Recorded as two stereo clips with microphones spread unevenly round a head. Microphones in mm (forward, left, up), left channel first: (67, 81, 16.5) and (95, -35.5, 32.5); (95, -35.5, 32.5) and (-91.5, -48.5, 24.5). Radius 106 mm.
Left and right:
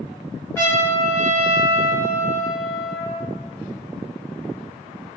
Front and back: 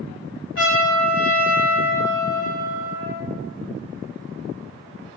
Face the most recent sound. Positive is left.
turn(degrees=30)